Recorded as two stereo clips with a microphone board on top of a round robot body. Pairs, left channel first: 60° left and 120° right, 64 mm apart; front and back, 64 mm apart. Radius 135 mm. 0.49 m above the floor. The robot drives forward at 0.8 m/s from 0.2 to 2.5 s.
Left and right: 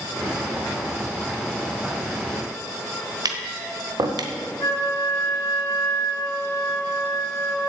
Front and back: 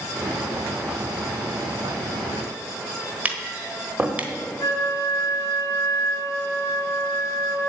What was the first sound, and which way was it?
Tapping, 115° right.